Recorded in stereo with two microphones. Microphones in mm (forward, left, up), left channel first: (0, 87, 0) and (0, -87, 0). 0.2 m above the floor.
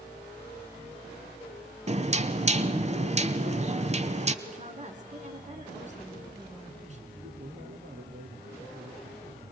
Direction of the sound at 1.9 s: 40° right (ahead or behind).